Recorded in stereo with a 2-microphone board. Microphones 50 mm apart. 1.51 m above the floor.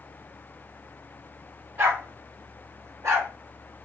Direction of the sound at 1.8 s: 45° right (ahead or behind).